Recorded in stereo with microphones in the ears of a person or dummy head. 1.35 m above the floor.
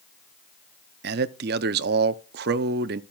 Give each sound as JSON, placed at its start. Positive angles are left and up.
{"t": 1.0, "sound": "a man speaking", "side_deg": -50, "distance_m": 0.6}